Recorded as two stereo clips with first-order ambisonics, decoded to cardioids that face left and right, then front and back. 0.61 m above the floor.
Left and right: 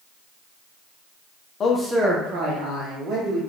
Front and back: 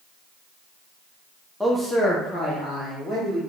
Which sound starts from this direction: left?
A man speaking, at 1.6 s.